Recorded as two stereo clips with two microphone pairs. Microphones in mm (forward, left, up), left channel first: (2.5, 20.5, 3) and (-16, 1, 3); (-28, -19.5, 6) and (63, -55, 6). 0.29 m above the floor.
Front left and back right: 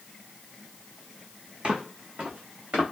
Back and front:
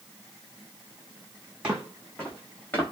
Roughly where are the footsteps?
Right.